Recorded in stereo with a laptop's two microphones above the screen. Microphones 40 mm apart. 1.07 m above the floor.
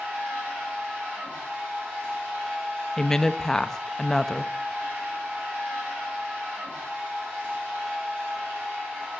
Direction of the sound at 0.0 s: 40° right (ahead or behind).